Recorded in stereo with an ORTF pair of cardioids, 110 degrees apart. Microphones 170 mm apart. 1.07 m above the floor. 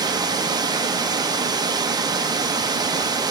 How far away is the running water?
About 0.8 m.